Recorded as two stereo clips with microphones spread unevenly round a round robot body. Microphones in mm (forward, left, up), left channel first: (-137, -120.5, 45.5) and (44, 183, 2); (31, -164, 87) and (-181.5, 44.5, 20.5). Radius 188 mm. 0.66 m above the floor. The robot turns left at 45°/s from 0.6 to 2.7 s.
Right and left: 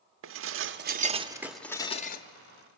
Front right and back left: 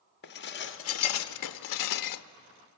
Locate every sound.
0.2 s dishes clattering: 15° left, 0.7 m; by 2.2 s 55° right, 0.7 m